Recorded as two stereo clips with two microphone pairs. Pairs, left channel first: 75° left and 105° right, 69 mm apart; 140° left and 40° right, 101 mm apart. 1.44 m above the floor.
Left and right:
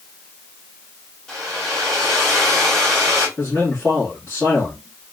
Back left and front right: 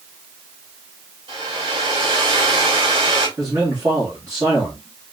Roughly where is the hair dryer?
Ahead.